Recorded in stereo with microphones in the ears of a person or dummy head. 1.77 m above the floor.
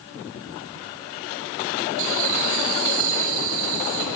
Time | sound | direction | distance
2.0 | laughter | 70° right (ahead or behind) | 8.5 m